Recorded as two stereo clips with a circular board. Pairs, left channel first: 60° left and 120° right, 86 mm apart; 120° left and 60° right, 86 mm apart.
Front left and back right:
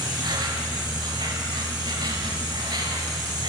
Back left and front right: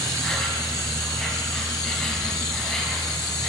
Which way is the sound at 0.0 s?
155° right.